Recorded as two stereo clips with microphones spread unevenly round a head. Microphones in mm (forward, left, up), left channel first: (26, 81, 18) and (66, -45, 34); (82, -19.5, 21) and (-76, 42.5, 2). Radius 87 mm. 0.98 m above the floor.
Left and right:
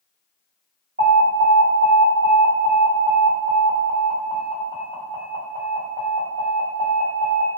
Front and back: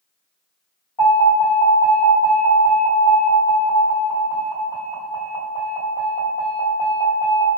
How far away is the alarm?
About 1.9 m.